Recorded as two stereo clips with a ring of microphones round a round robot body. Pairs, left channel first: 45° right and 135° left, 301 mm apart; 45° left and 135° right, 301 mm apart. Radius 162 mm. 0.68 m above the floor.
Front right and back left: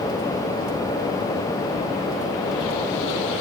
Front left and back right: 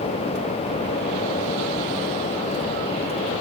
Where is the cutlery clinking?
I don't hear cutlery clinking.